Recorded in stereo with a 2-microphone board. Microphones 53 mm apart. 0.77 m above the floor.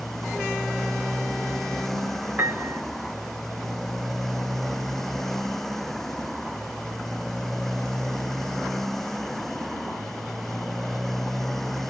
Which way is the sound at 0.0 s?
5° left (ahead or behind).